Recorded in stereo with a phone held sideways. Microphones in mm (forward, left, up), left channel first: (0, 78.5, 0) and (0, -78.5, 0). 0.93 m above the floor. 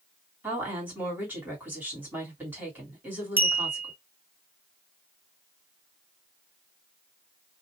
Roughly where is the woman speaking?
Centre.